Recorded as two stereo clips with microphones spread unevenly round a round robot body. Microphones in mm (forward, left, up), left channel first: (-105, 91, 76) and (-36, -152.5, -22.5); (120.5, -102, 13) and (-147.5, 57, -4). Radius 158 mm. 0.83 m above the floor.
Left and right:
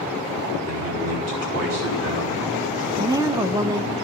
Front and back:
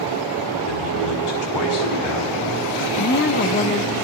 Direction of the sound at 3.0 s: 65° right.